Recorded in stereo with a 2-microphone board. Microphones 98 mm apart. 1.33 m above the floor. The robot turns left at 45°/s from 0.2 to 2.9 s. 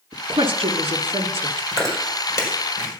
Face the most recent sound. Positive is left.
turn(degrees=55)  # may be behind; listen again after turning